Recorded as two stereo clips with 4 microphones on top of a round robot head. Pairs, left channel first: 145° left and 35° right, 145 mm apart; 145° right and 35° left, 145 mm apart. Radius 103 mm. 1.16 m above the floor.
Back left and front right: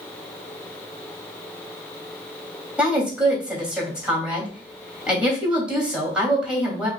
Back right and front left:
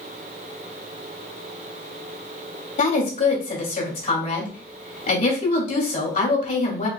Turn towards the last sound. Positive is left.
turn(degrees=-115)